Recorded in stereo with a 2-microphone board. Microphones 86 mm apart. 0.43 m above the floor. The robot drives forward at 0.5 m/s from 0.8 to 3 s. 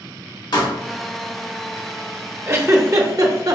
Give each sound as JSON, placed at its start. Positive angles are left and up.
{"t": 0.5, "sound": "a pop", "side_deg": 55, "distance_m": 1.2}
{"t": 2.5, "sound": "a giggle", "side_deg": -30, "distance_m": 0.7}